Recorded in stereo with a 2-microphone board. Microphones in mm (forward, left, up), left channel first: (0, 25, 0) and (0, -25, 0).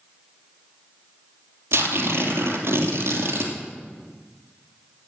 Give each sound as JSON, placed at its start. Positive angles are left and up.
{"t": 1.7, "sound": "tearing paper", "side_deg": -60, "distance_m": 2.5}